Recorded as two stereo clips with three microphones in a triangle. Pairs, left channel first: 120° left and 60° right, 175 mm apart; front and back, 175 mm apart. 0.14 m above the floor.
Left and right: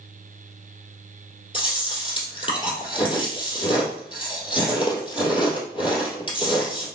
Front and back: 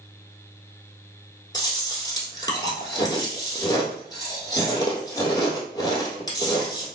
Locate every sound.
1.5 s chewing: 65° left, 1.8 m